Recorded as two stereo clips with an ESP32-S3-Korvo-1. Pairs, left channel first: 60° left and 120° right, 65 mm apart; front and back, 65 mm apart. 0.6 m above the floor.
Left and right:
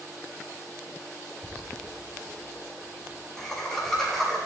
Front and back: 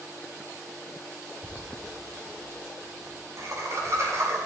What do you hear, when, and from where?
1.4 s laughter: 130° left, 7 m; by 4.4 s 145° left, 6.5 m